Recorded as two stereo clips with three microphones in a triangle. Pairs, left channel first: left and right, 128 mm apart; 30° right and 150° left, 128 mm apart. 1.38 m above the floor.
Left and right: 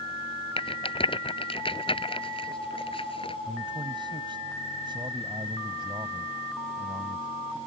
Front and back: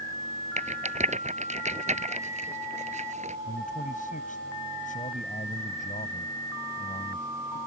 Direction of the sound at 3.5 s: 35° right.